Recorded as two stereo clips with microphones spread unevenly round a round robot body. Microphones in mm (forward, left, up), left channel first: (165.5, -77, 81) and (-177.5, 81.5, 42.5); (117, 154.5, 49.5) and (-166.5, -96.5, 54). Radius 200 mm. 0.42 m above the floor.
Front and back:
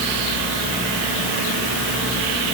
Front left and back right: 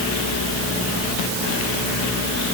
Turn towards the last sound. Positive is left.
No sound to turn to.